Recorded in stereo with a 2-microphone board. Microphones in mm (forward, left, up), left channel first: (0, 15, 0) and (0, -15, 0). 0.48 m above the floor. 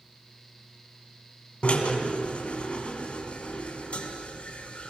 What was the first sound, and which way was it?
A drill, 40° left (ahead or behind).